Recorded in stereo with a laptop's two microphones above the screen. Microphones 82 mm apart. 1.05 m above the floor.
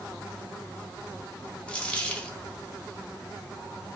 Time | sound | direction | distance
1.7 | a dropped coin | 15° left (ahead or behind) | 0.7 m